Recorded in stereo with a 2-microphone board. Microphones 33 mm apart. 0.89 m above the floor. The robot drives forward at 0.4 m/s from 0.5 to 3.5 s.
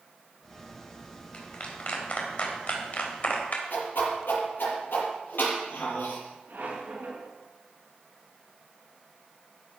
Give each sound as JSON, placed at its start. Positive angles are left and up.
{"t": 1.3, "sound": "a clap", "side_deg": 40, "distance_m": 3.5}
{"t": 3.7, "sound": "a whoosh", "side_deg": 75, "distance_m": 6.5}
{"t": 6.5, "sound": "a squeak", "side_deg": -60, "distance_m": 5.5}